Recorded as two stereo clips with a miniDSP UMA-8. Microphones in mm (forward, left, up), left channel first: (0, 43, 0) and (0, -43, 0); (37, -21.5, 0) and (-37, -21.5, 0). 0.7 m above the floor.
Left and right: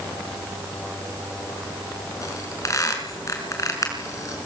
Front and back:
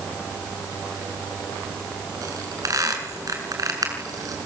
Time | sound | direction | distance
2.2 | a squeak | 140° left | 6 m